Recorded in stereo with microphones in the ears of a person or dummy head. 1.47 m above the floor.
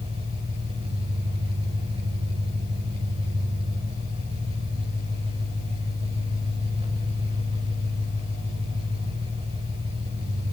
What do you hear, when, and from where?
0.0 s an engine running: 30° right (ahead or behind), 6.5 m